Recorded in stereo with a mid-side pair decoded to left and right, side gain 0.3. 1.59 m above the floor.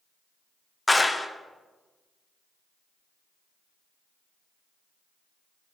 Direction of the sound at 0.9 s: 20° left.